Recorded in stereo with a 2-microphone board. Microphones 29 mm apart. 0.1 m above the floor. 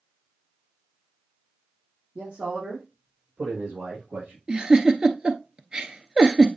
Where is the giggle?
30° right (ahead or behind), 0.9 m.